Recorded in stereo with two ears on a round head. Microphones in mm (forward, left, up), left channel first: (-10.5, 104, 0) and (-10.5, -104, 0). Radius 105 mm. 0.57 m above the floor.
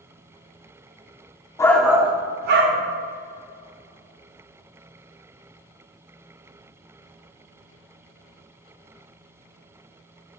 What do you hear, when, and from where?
1.6 s a shout: 15° left (ahead or behind), 0.8 m; by 2.8 s 60° right (ahead or behind), 1.1 m